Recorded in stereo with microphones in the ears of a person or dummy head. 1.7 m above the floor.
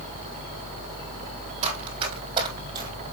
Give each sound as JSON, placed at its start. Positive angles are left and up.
{"t": 1.6, "sound": "running footsteps", "side_deg": -35, "distance_m": 4.5}